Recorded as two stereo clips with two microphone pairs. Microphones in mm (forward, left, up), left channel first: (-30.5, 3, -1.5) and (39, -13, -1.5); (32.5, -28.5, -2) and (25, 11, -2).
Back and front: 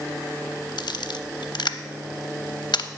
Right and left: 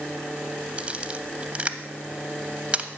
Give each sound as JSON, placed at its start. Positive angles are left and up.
{"t": 0.8, "sound": "a camera shutter", "azimuth_deg": 160, "distance_m": 0.6}